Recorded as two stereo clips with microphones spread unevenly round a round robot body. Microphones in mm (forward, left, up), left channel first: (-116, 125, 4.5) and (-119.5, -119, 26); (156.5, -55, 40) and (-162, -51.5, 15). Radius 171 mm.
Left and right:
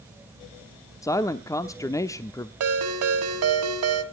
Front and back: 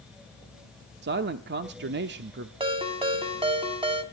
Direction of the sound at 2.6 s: 110° right.